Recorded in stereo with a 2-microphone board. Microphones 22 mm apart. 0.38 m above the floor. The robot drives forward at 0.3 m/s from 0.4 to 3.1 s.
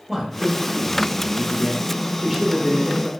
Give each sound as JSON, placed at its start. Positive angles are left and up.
{"t": 0.1, "sound": "a man speaking", "side_deg": -5, "distance_m": 0.9}